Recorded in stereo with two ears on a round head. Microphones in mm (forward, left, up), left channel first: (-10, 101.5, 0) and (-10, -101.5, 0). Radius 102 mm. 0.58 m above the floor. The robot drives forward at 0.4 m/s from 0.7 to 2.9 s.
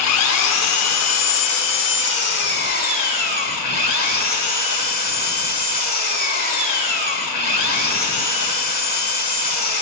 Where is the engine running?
70° left (ahead or behind), 0.8 m; by 9.8 s 40° left (ahead or behind), 1.2 m.